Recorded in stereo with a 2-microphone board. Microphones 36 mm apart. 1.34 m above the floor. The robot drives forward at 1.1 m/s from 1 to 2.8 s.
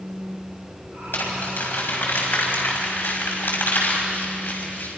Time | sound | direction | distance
1.1 | crumpling | 85° left | 5.5 m